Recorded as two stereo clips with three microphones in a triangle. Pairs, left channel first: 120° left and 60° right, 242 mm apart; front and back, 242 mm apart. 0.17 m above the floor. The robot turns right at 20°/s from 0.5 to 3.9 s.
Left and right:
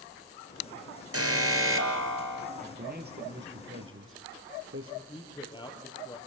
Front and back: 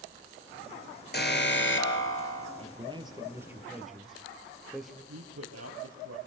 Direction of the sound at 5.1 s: 170° right.